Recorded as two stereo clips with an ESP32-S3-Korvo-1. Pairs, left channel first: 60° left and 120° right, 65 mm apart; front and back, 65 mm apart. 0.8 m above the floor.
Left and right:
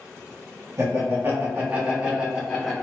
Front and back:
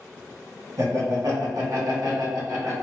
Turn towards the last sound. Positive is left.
turn(degrees=150)